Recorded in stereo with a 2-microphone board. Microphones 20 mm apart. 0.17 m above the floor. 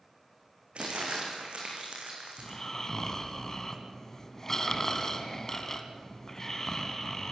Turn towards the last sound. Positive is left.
turn(degrees=25)  # may be behind; listen again after turning